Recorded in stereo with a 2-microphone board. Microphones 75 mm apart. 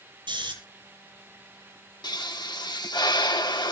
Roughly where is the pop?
Left.